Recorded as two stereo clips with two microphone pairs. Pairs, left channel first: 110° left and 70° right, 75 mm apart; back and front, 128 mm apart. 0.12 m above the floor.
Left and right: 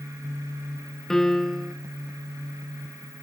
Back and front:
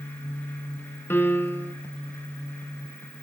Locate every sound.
1.1 s a piano: 170° left, 0.7 m